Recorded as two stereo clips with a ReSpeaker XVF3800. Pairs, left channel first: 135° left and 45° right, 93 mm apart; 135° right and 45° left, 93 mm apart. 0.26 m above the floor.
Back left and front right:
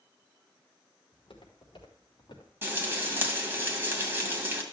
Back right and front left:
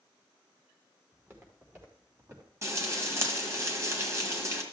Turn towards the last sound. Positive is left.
turn(degrees=5)